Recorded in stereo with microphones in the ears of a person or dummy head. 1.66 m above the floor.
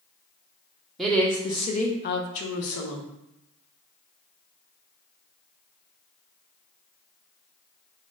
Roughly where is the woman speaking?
Centre.